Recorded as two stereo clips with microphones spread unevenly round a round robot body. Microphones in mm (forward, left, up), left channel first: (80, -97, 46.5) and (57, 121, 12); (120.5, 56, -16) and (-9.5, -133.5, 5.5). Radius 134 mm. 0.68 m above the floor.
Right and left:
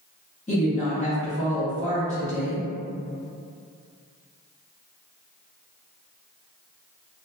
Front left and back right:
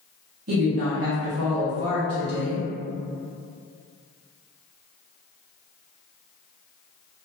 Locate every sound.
0.5 s a woman speaking: 145° right, 1.2 m